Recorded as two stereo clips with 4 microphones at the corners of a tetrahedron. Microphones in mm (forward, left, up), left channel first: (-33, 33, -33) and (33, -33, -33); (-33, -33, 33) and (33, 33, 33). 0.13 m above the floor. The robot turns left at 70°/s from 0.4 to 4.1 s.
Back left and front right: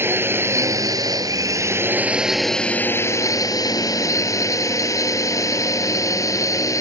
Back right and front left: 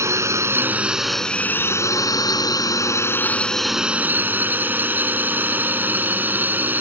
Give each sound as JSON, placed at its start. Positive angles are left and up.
{"t": 0.0, "sound": "a drone", "azimuth_deg": 5}